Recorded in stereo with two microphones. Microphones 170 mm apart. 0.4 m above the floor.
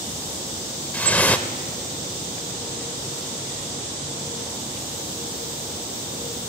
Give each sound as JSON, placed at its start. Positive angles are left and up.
{"t": 0.9, "sound": "dripping", "side_deg": 10, "distance_m": 0.7}